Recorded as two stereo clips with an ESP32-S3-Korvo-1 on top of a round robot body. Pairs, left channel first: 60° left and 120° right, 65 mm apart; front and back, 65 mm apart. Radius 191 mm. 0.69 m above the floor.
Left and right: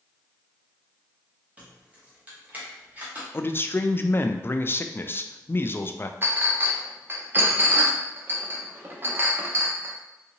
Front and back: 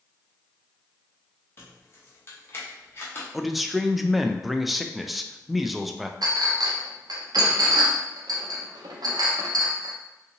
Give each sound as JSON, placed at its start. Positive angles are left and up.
{"t": 1.6, "sound": "keys jangling", "azimuth_deg": -50, "distance_m": 1.0}
{"t": 3.3, "sound": "a man speaking", "azimuth_deg": 90, "distance_m": 0.5}
{"t": 6.2, "sound": "a clink", "azimuth_deg": -175, "distance_m": 0.6}